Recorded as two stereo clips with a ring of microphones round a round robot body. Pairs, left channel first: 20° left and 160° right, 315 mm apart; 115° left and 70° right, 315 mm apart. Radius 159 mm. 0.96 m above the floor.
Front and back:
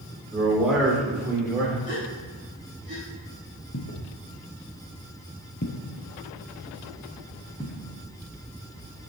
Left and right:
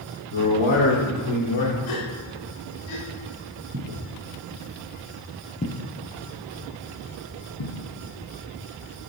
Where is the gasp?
90° left, 2.5 m.